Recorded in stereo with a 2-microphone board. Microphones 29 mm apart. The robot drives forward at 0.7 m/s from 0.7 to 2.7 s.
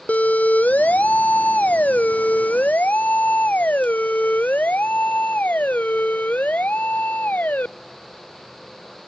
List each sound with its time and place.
0.1 s a siren: 65° left (ahead or behind); by 7.7 s 80° left